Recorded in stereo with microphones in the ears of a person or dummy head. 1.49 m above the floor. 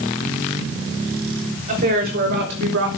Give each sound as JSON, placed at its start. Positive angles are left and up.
{"t": 1.7, "sound": "a woman speaking", "side_deg": -50, "distance_m": 3.5}